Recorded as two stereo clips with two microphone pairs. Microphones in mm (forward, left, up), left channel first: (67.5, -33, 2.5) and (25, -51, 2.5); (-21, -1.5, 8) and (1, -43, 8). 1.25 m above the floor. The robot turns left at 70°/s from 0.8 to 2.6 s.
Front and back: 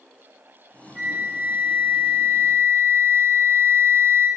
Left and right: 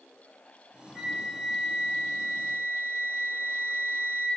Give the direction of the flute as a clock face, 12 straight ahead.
5 o'clock.